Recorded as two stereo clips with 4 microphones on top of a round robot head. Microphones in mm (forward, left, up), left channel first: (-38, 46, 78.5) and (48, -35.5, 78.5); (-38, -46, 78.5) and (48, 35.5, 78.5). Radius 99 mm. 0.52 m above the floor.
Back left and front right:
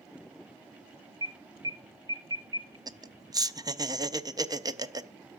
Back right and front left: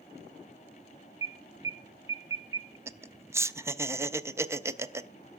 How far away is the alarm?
About 1.1 m.